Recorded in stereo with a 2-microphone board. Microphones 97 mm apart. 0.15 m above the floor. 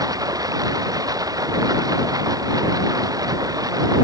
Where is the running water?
40° right (ahead or behind).